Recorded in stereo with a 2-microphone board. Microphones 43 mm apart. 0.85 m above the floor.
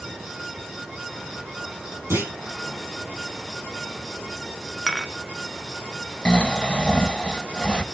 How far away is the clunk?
About 7.5 m.